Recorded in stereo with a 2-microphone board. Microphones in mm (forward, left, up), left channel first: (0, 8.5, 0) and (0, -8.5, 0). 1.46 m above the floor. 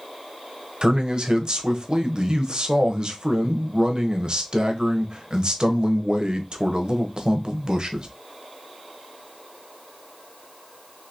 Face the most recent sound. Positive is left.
turn(degrees=-55)  # may be behind; listen again after turning